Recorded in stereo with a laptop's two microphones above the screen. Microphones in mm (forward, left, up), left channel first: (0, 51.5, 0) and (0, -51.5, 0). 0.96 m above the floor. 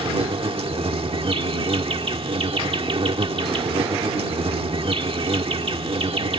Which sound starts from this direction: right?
An insect, at 0.0 s.